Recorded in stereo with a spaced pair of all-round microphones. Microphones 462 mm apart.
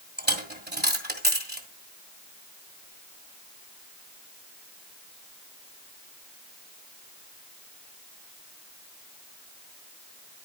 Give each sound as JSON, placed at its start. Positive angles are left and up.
{"t": 0.2, "sound": "a dropped coin", "side_deg": -20, "distance_m": 1.8}